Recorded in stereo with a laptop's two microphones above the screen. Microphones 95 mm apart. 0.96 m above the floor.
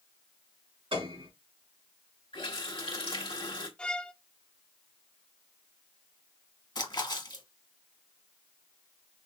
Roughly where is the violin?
Centre.